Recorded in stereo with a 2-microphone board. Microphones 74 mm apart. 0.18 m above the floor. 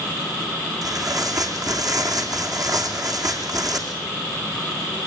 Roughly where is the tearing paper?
Right.